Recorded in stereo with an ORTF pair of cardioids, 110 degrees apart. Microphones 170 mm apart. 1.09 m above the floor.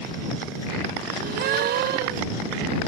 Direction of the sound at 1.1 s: 70° right.